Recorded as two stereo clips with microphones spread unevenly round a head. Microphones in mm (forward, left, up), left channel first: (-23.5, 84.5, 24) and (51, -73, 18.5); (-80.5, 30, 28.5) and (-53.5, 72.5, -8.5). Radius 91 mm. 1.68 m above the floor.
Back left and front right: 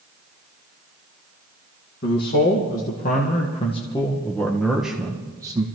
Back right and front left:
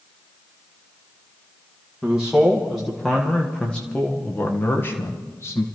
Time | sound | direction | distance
2.0 | a man speaking | 145° left | 1.9 m